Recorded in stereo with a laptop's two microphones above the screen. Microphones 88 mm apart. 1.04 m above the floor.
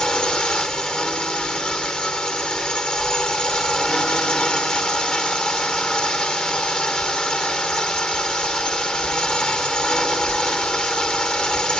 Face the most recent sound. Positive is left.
turn(degrees=10)  # may be behind; listen again after turning